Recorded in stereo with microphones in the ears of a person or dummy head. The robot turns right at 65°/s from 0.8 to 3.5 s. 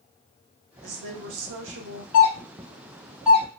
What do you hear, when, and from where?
0.8 s a woman speaking: 130° right, 0.8 m; by 2.0 s 50° right, 0.8 m
2.1 s a doorbell: 40° left (ahead or behind), 0.8 m; by 3.5 s 15° right (ahead or behind), 0.8 m